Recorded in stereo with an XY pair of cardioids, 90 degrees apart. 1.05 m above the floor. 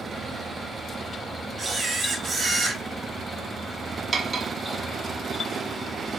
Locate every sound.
0.0 s a fan: 35° right, 1.5 m
1.6 s a camera shutter: 45° right, 1.5 m
4.1 s cutlery clinking: 40° right, 0.8 m